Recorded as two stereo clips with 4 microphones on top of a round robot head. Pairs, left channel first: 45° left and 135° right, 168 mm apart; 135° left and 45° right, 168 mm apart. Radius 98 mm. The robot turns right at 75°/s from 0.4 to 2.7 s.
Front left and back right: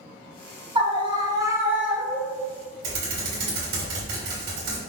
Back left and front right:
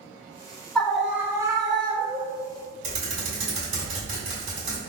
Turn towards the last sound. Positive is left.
turn(degrees=-100)